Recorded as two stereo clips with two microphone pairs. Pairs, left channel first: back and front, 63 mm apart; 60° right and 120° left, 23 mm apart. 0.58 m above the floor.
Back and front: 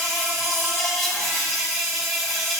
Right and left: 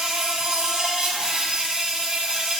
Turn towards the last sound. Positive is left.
turn(degrees=90)